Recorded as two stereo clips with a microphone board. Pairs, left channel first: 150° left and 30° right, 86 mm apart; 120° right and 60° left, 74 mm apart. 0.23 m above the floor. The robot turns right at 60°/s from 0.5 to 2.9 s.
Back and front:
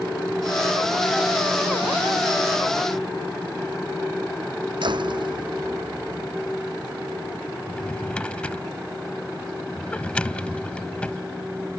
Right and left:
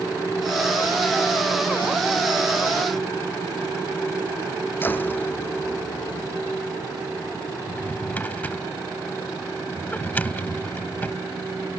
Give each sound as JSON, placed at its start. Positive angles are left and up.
{"t": 4.8, "sound": "a door slam", "azimuth_deg": -55}
{"t": 7.7, "sound": "a drawer", "azimuth_deg": -150}